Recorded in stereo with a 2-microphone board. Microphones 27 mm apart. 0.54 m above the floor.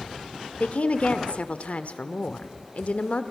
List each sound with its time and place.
0.6 s a woman speaking: 60° left (ahead or behind), 1.2 m